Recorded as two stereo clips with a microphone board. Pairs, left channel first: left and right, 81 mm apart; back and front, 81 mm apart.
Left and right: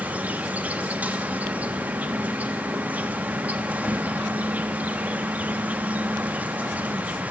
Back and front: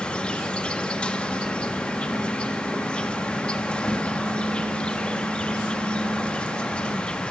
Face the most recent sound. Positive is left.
turn(degrees=-125)